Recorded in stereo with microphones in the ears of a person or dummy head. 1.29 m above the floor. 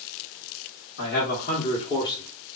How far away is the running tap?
I don't hear a running tap.